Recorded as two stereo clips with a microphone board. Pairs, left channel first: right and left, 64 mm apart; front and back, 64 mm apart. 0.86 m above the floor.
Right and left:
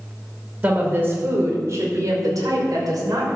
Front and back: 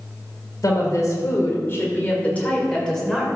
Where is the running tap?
I don't hear a running tap.